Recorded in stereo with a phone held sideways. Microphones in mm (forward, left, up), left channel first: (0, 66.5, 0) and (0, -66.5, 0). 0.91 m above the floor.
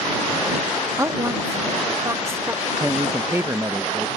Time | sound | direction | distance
1.0 | a woman speaking | 25° right (ahead or behind) | ?
2.8 | a man speaking | 20° right (ahead or behind) | ?